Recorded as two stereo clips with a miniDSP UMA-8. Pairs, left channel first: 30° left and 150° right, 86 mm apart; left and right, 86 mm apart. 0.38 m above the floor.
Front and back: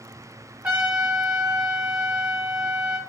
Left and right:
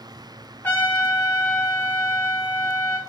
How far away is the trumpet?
About 0.8 m.